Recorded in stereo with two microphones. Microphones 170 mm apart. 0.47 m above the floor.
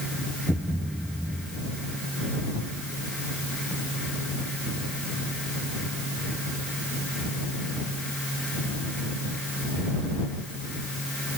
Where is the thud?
5° right (ahead or behind).